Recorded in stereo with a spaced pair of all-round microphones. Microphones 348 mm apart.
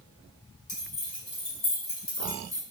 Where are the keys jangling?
70° left (ahead or behind), 2.0 m; by 2.6 s 60° left (ahead or behind), 1.0 m.